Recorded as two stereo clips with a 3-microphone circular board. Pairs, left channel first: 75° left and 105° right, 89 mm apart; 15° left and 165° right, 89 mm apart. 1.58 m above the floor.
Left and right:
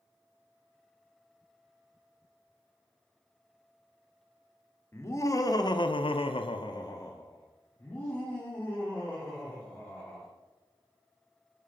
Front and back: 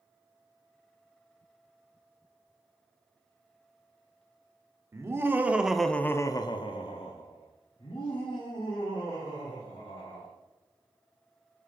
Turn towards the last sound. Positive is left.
turn(degrees=-5)